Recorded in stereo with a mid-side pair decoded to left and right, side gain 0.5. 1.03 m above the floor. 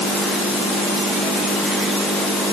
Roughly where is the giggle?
No giggle in this recording.